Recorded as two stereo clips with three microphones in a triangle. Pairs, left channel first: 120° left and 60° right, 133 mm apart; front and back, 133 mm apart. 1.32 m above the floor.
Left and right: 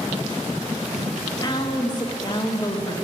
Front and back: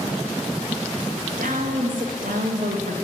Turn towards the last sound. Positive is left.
turn(degrees=180)